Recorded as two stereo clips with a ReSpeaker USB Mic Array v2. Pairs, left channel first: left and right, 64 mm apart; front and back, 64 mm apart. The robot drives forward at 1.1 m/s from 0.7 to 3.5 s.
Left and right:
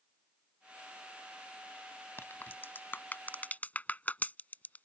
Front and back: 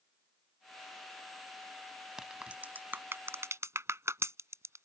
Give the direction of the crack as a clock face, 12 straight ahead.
9 o'clock.